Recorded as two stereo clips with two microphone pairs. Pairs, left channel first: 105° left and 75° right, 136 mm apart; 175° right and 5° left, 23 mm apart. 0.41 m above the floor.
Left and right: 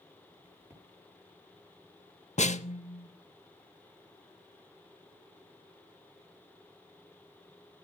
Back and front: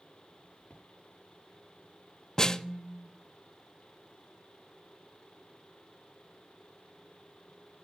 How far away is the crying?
I don't hear crying.